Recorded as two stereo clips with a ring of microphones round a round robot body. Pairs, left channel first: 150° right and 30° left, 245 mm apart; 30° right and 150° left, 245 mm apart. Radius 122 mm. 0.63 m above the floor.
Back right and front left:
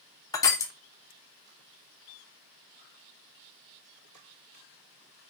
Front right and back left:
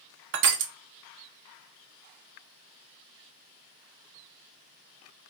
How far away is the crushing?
About 0.6 m.